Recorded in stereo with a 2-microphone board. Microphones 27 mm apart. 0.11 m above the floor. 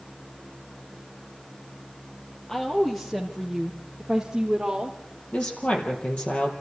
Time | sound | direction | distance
2.5 | a woman speaking | 15° left (ahead or behind) | 3.5 m
5.3 | a woman speaking | 55° left (ahead or behind) | 4 m